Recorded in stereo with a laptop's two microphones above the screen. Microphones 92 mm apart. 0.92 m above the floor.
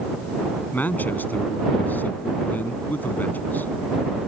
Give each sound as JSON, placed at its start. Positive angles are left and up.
{"t": 0.7, "sound": "a man speaking", "side_deg": 20}